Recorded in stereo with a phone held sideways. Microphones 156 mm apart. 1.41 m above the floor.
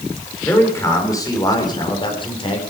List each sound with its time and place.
0.4 s a man speaking: 15° left (ahead or behind), 4 m; by 2.6 s 35° left (ahead or behind), 4 m